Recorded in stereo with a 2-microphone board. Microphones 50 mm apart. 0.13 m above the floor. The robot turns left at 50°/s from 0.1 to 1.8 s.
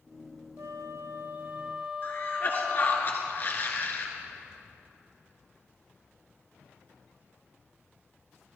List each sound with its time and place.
0.6 s a flute: 105° right, 0.6 m; by 3.0 s 165° right, 0.6 m
2.0 s a cough: 45° left (ahead or behind), 1.9 m